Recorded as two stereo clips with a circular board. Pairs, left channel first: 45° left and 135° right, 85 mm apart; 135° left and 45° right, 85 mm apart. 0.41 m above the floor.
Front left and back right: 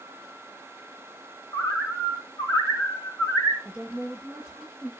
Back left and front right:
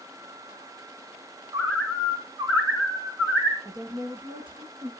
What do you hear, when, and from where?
1.5 s a bird: straight ahead, 2.5 m
3.6 s a woman speaking: 55° right, 7 m